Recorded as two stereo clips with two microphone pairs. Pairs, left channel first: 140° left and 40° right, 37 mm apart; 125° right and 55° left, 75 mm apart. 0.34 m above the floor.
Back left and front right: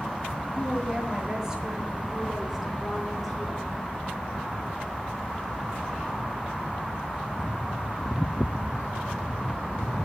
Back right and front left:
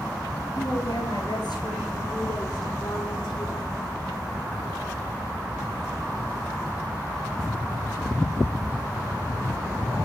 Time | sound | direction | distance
0.6 | a woman speaking | 100° right | 5.5 m